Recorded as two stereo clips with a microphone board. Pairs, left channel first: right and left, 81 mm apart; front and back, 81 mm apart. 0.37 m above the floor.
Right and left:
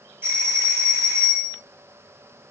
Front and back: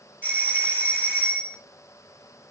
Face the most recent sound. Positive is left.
turn(degrees=45)